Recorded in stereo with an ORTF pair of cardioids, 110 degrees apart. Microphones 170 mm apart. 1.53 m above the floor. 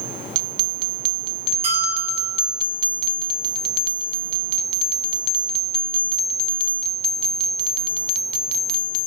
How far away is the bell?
About 6 m.